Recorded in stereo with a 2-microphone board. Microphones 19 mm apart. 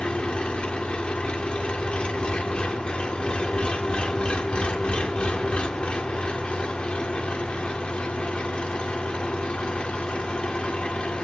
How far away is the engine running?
About 1.9 m.